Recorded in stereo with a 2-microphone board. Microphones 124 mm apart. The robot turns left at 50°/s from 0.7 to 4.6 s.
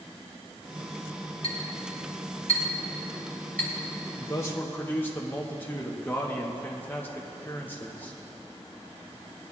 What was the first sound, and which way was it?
A clink, 60° left (ahead or behind).